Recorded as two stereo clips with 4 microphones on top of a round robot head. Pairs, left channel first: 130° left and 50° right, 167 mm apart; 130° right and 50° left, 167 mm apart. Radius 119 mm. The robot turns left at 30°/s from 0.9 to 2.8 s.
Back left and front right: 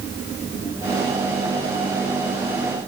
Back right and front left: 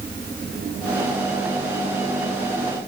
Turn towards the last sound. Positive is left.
No sound to turn to.